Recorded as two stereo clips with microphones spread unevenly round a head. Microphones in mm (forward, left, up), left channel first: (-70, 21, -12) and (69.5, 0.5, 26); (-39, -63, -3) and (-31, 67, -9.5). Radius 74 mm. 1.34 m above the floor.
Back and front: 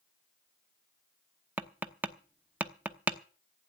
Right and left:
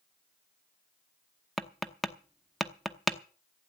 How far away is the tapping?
About 0.8 m.